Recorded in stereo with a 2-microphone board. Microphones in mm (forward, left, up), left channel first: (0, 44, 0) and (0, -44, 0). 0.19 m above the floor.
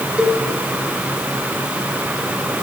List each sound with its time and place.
0.2 s a cowbell: 5° right (ahead or behind), 1.6 m